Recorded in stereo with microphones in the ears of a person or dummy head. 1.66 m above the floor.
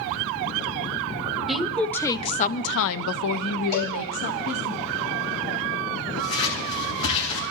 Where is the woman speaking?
Centre (ahead or behind), 1.0 m; by 4.7 s 55° left (ahead or behind), 1.5 m.